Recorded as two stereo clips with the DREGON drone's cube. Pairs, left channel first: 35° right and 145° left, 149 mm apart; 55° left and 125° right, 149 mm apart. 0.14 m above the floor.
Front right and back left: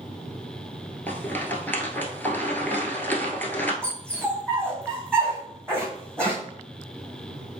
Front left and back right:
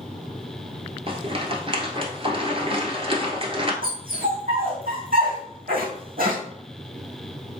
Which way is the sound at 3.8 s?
115° right.